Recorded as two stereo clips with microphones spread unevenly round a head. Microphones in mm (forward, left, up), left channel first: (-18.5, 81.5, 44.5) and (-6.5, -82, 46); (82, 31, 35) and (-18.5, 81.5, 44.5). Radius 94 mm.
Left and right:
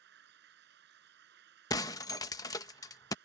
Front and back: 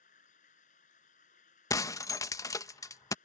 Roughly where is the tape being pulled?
I don't hear tape being pulled.